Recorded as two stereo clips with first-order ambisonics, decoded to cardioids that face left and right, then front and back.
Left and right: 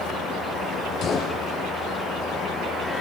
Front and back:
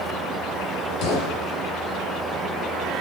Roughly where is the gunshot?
Ahead left.